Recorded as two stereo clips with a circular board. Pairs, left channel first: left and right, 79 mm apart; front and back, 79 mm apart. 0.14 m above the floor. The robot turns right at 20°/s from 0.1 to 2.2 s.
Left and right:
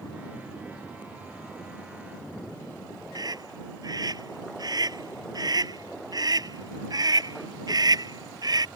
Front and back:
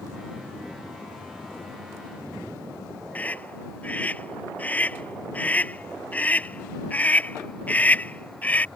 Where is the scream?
70° right.